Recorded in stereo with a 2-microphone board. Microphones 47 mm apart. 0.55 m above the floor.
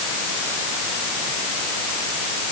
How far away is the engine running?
No engine running in this recording.